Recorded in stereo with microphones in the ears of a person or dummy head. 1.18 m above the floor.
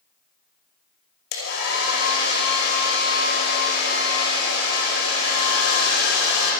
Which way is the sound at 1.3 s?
60° left (ahead or behind).